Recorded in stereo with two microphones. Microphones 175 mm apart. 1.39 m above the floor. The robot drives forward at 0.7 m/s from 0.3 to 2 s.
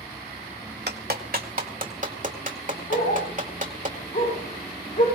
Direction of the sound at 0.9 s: 70° right (ahead or behind).